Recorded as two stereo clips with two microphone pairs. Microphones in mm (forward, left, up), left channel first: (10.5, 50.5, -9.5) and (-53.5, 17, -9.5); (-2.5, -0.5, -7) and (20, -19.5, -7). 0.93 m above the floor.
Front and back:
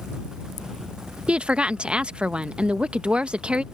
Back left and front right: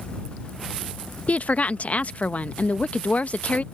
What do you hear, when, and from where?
1.3 s a woman speaking: 135° left